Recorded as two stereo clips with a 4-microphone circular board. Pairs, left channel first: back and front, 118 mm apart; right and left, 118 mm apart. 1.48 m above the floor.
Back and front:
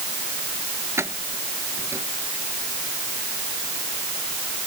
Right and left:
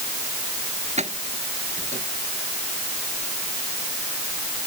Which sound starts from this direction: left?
Keys jangling, at 1.0 s.